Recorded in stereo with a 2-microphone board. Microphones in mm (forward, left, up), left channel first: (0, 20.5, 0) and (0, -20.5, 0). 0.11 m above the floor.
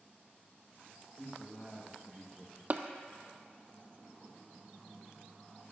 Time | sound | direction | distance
1.2 | a man speaking | 20° left (ahead or behind) | 2.5 m
2.7 | tapping | 40° right (ahead or behind) | 0.6 m